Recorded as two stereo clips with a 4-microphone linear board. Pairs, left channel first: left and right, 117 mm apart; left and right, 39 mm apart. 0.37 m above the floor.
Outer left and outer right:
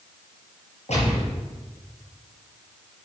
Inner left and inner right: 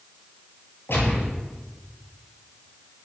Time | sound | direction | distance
0.9 | a gunshot | 70° left (ahead or behind) | 6 m